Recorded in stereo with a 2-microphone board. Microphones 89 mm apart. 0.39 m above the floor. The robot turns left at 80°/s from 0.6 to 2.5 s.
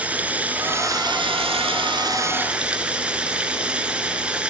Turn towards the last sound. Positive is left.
turn(degrees=-170)